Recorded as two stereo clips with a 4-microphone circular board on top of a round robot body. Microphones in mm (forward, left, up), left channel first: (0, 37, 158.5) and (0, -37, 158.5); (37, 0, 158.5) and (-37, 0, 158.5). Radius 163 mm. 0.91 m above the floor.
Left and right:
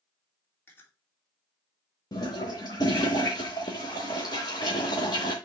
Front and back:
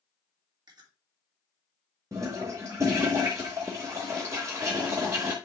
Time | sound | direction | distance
0.7 | chewing | 155° left | 3 m
2.1 | a toilet flushing | 125° left | 0.8 m